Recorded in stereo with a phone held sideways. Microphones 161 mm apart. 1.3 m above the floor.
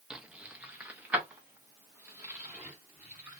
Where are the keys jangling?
5° right (ahead or behind), 0.5 m; by 3.4 s 10° right (ahead or behind), 2 m.